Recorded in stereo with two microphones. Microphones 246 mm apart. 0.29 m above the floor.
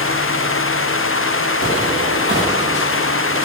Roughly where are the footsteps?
Right.